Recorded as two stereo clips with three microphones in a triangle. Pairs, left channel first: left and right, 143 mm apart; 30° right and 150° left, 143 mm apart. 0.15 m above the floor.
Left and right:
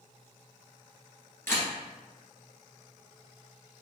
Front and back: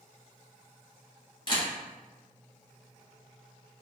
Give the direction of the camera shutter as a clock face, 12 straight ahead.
11 o'clock.